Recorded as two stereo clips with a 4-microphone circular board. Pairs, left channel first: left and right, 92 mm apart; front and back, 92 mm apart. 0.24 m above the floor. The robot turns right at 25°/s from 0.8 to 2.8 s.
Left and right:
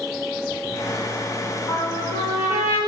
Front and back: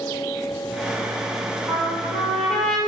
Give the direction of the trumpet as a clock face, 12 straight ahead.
10 o'clock.